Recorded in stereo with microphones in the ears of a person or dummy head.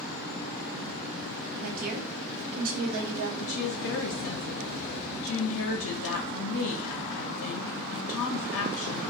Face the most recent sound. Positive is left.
turn(degrees=70)  # may be behind; listen again after turning